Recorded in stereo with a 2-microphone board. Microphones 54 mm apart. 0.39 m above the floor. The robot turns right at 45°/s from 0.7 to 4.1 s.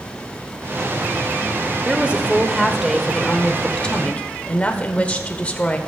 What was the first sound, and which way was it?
A woman speaking, 50° right.